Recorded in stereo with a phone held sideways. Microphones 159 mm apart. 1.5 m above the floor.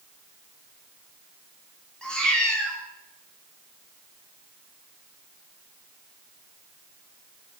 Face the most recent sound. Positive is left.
turn(degrees=5)  # may be behind; listen again after turning